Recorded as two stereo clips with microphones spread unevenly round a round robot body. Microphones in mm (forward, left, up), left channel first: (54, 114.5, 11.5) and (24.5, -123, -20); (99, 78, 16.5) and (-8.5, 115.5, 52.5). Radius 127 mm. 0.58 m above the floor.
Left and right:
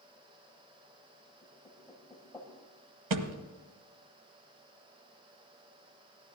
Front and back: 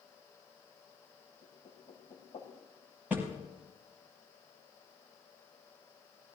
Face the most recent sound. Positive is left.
turn(degrees=-115)